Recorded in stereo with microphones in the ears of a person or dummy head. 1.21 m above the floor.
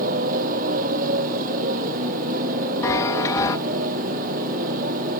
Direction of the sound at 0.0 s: 50° right (ahead or behind).